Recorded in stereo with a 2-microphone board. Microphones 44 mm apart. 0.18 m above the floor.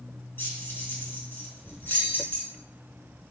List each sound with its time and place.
0.4 s keys jangling: 55° left (ahead or behind), 1.3 m